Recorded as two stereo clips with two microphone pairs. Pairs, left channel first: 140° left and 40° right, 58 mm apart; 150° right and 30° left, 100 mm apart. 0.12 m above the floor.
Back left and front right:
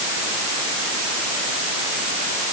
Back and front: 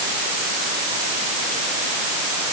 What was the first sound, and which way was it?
Only background noise.